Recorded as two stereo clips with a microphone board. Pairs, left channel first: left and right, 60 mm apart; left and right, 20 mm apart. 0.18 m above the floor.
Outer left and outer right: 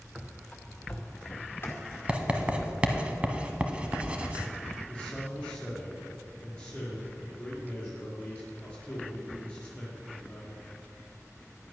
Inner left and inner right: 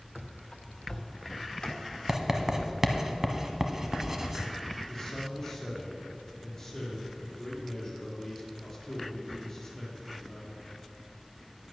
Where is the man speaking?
15° left (ahead or behind), 4 m.